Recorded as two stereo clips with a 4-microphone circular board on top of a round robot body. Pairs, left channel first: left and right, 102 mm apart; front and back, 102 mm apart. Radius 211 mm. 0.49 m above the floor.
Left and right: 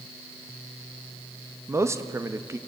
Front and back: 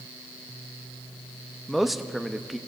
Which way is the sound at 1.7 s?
95° right.